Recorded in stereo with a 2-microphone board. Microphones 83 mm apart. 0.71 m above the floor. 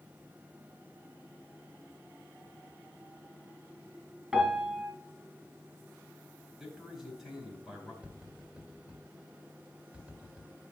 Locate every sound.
4.3 s a piano: 15° right (ahead or behind), 3 m
6.6 s a man speaking: 5° right (ahead or behind), 4 m
8.0 s tapping: 15° right (ahead or behind), 1.9 m